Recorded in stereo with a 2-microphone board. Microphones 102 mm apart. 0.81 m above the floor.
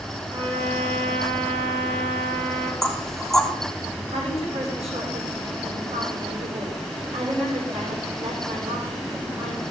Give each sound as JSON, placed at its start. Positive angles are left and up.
{"t": 0.3, "sound": "a trumpet", "side_deg": -40, "distance_m": 9.0}
{"t": 2.8, "sound": "knocking", "side_deg": 5, "distance_m": 1.8}
{"t": 4.1, "sound": "a woman speaking", "side_deg": -85, "distance_m": 7.5}